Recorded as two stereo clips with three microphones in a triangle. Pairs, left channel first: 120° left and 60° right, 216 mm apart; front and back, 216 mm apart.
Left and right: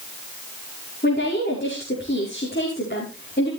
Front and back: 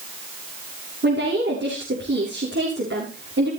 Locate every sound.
1.0 s a woman speaking: 160° left, 7 m